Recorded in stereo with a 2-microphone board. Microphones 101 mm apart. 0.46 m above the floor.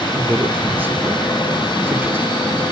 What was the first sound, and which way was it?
A man speaking, 20° right (ahead or behind).